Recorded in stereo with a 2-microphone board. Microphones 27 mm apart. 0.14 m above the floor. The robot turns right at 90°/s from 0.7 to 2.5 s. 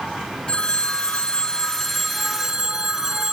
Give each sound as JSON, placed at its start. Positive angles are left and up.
{"t": 0.5, "sound": "a phone ringing", "azimuth_deg": 45, "distance_m": 1.2}